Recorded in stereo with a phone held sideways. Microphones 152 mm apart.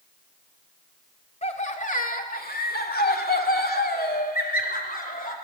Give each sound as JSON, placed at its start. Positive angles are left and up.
{"t": 1.4, "sound": "laughter", "side_deg": 45, "distance_m": 2.0}